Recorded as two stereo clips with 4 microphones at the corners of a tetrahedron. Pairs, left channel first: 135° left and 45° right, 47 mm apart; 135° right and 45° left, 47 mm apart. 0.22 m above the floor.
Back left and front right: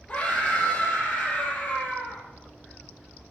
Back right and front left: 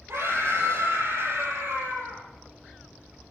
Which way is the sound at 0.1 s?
75° left.